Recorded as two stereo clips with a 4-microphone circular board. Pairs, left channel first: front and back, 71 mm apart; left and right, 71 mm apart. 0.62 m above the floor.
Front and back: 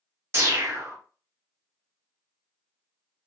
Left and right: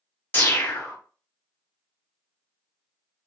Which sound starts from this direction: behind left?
A whoosh, at 0.3 s.